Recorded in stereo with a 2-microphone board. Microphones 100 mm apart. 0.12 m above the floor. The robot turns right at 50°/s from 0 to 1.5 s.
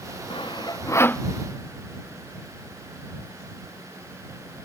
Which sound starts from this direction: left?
Sawing, at 0.3 s.